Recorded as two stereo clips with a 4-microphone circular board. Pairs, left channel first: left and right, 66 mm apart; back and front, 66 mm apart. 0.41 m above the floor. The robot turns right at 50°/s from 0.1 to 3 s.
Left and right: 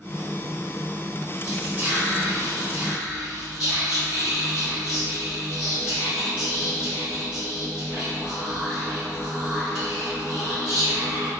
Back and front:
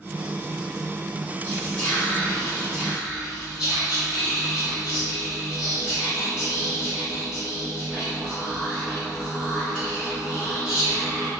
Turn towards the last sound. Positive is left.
turn(degrees=-60)